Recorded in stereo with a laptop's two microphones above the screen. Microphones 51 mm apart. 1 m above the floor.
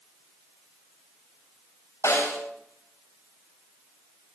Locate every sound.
2.0 s a snare drum: 70° left (ahead or behind), 6 m